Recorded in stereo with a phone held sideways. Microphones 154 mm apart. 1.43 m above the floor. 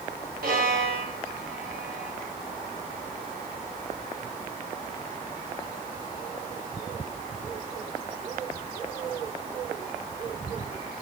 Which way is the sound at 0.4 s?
75° right (ahead or behind).